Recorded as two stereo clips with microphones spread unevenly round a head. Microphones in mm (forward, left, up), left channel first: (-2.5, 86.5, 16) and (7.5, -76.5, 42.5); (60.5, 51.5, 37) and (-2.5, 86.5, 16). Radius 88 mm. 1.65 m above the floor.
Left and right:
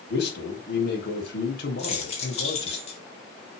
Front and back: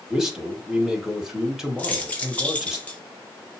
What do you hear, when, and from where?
0.1 s a man speaking: 70° left, 2.5 m
1.8 s keys jangling: 40° left, 1.8 m